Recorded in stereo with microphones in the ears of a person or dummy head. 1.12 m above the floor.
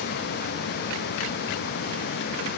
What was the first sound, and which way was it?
Only background noise.